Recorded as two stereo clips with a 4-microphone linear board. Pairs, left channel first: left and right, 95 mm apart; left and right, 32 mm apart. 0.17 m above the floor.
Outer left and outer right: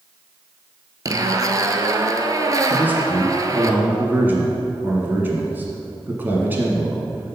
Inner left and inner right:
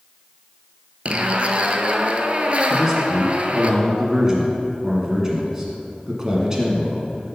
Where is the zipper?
40° right (ahead or behind), 0.6 m.